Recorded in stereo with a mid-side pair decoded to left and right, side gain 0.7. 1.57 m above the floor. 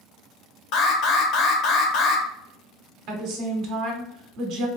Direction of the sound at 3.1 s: 60° right.